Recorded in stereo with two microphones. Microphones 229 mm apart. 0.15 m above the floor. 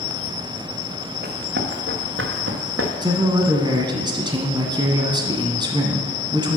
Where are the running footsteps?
40° right (ahead or behind), 1.9 m; by 2.9 s 65° right (ahead or behind), 2 m.